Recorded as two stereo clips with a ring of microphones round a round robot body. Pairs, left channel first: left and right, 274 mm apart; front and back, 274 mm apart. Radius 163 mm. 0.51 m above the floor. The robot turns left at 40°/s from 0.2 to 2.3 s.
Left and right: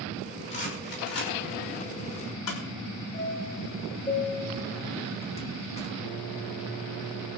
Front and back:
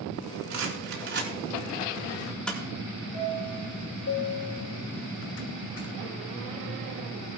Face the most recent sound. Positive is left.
turn(degrees=25)